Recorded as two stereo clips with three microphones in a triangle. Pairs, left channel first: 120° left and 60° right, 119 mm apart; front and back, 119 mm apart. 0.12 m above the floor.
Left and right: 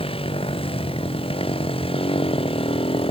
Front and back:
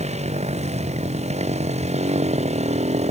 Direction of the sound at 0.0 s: 160° left.